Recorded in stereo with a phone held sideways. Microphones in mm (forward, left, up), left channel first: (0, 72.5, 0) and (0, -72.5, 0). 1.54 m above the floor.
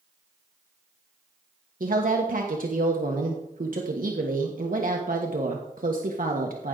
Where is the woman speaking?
70° right (ahead or behind), 1.2 m.